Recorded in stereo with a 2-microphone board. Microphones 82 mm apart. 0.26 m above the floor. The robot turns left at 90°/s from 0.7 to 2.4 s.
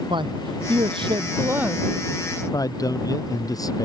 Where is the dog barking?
No dog barking in this recording.